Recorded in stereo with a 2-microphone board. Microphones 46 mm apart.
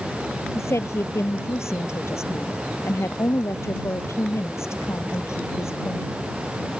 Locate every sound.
0.6 s a woman speaking: 75° left (ahead or behind)